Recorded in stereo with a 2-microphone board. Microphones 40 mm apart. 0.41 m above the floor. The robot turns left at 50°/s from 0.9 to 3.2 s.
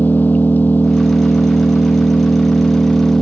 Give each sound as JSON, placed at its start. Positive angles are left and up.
{"t": 0.0, "sound": "an engine running", "azimuth_deg": 135}